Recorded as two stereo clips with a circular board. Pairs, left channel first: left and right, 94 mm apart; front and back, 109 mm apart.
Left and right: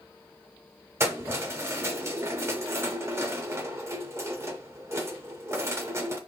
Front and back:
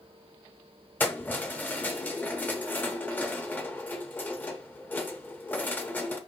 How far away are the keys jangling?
About 0.8 m.